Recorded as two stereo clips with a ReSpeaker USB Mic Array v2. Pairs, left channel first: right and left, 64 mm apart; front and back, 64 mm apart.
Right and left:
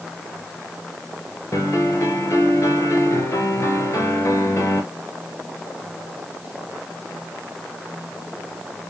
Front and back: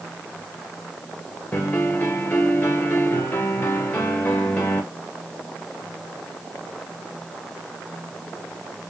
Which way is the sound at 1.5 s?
50° right.